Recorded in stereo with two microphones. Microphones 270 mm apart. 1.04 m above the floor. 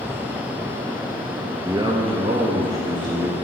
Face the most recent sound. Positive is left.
turn(degrees=-30)  # may be behind; listen again after turning